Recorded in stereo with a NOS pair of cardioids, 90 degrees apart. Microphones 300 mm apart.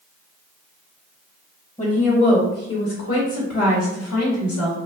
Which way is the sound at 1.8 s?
20° left.